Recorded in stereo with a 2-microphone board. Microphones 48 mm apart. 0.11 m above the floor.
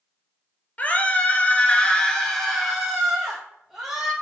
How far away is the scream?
About 1.7 m.